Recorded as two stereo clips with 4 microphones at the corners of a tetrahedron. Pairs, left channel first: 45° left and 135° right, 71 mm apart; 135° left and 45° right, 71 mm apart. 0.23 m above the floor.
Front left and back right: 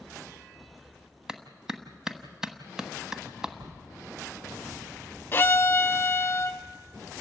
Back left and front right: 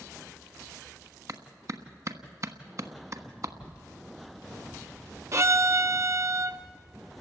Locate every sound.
1.3 s a clap: 55° right, 1.2 m
3.6 s writing: 150° right, 1.7 m
5.3 s a violin: 10° right, 0.6 m